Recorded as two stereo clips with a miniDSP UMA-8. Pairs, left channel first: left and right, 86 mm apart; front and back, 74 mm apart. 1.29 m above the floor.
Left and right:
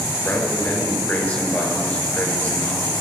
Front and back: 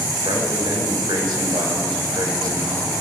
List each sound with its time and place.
0.2 s a man speaking: 165° left, 4.5 m